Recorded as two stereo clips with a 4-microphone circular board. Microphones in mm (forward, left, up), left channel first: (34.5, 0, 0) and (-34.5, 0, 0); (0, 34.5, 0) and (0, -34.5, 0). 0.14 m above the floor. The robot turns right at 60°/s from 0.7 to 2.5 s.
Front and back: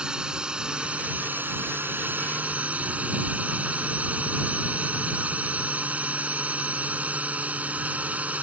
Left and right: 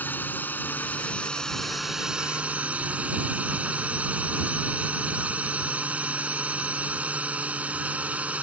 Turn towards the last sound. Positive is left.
turn(degrees=-135)